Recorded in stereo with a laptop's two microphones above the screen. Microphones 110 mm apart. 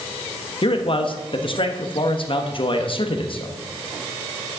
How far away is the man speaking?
About 1.1 m.